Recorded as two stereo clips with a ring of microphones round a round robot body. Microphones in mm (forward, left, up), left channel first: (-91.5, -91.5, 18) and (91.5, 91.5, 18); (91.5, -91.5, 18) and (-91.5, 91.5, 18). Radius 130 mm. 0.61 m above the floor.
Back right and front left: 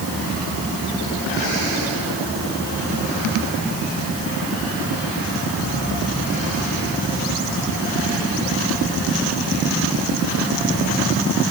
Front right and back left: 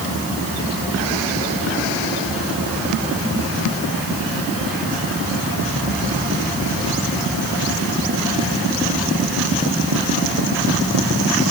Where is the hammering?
No hammering in this recording.